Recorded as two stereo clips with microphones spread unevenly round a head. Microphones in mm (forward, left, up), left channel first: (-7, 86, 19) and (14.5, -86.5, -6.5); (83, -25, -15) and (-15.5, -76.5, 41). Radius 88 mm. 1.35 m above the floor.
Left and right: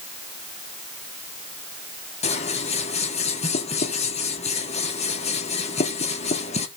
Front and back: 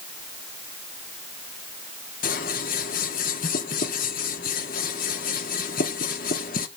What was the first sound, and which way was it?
Scissors, 50° left.